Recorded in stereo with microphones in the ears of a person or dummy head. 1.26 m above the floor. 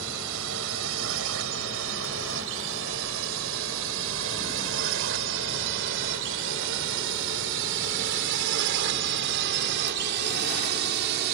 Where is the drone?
80° right; by 11.3 s 55° right (ahead or behind).